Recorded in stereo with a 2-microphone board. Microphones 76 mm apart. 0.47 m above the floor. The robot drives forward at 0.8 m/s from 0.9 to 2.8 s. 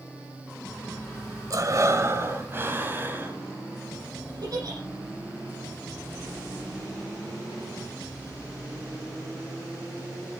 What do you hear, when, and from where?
1.5 s breathing: 50° right (ahead or behind), 1.3 m; by 3.4 s 30° right (ahead or behind), 2 m
4.4 s a giggle: 60° right (ahead or behind), 9 m